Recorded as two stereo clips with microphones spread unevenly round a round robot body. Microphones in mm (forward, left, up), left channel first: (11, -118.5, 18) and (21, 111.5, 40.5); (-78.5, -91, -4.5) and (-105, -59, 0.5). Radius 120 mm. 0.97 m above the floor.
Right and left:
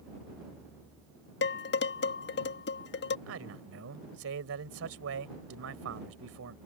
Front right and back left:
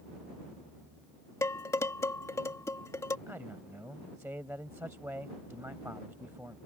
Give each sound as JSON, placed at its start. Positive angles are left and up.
{"t": 1.4, "sound": "dishes clattering", "azimuth_deg": -45}
{"t": 3.3, "sound": "a man speaking", "azimuth_deg": 55}